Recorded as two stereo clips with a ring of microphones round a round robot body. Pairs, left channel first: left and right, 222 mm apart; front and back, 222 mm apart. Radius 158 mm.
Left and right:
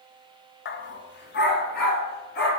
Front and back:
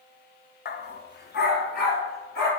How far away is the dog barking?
About 0.6 m.